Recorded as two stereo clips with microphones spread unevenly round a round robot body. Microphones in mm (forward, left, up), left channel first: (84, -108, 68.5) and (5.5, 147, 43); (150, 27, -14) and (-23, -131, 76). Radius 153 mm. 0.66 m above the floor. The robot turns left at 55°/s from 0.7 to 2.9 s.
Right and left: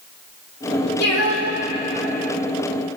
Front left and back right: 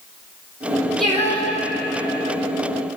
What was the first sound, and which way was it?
Singing, 50° right.